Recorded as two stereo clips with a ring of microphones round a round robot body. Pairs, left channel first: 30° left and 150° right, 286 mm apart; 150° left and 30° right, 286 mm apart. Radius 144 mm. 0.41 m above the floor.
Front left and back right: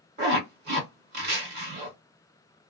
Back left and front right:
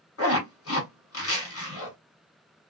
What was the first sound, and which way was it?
A zipper, 165° left.